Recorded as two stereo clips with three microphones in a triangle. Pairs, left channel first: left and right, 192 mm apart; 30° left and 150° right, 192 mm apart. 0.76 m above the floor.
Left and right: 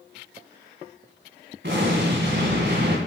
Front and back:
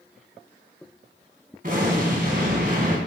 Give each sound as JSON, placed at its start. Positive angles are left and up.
{"t": 1.6, "sound": "an explosion", "azimuth_deg": -110, "distance_m": 2.0}